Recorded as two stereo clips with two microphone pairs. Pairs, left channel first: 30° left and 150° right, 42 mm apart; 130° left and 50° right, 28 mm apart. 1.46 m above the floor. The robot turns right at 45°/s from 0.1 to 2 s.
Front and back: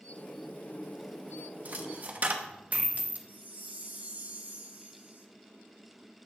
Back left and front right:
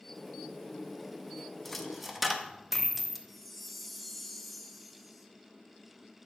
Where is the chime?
140° right, 0.8 m.